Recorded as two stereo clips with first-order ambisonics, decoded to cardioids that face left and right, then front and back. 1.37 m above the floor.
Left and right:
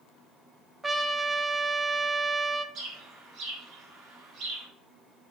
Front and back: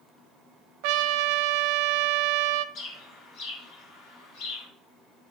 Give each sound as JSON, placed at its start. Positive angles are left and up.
{"t": 0.8, "sound": "a trumpet", "azimuth_deg": -170, "distance_m": 0.5}
{"t": 2.8, "sound": "a bird", "azimuth_deg": -40, "distance_m": 3.5}